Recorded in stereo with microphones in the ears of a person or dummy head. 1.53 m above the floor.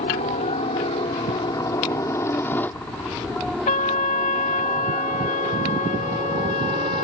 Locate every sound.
0.0 s a helicopter: 30° left (ahead or behind); by 7.0 s 30° right (ahead or behind)
3.7 s a trumpet: 35° left (ahead or behind)